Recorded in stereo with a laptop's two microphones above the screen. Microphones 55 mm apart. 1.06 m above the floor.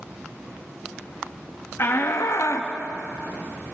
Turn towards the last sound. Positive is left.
turn(degrees=60)  # may be behind; listen again after turning